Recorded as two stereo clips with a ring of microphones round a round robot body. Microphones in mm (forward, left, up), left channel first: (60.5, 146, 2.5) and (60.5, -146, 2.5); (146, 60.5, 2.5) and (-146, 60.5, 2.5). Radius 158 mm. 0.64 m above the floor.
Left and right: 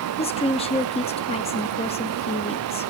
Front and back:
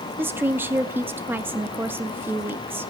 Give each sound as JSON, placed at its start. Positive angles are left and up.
{"t": 0.2, "sound": "a woman speaking", "azimuth_deg": 110, "distance_m": 0.7}